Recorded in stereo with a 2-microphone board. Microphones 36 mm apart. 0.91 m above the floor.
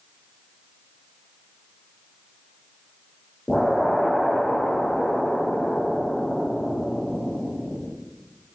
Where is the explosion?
5° left (ahead or behind), 1.5 m.